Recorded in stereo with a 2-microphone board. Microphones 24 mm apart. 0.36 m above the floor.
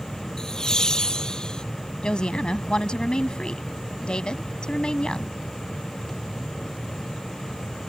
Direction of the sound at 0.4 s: 30° left (ahead or behind).